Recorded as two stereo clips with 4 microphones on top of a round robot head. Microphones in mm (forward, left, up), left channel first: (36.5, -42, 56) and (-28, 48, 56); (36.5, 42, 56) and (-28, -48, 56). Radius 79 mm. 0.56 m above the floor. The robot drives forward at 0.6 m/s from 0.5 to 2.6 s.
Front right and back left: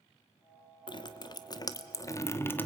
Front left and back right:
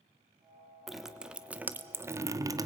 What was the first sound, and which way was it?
Dripping, 40° right.